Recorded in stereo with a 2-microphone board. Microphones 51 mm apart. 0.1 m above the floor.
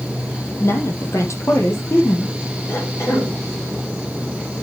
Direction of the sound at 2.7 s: 55° left (ahead or behind).